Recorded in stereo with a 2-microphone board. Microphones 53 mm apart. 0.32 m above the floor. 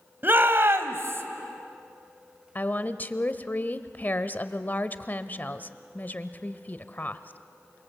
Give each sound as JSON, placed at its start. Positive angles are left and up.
{"t": 0.2, "sound": "a shout", "side_deg": -40, "distance_m": 1.8}
{"t": 2.5, "sound": "a woman speaking", "side_deg": 35, "distance_m": 1.0}